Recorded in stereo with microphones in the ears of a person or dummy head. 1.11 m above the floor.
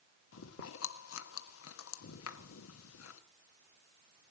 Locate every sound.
0.3 s chewing: 85° left, 1.2 m